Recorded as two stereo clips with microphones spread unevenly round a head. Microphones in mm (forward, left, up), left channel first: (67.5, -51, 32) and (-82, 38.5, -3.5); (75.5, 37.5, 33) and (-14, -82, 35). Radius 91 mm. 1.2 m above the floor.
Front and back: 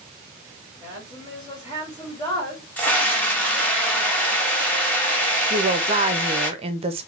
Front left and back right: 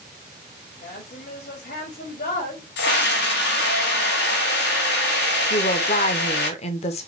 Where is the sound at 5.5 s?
100° left, 0.7 m.